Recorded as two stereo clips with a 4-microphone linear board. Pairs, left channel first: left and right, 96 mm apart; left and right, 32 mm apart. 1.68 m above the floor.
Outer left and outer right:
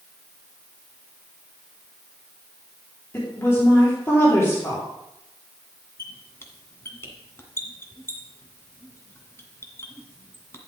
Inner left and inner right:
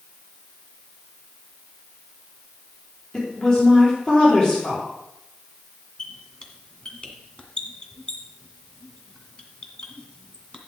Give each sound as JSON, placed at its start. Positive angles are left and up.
{"t": 3.1, "sound": "a woman speaking", "side_deg": 25, "distance_m": 4.5}
{"t": 6.0, "sound": "a squeak", "side_deg": 30, "distance_m": 1.7}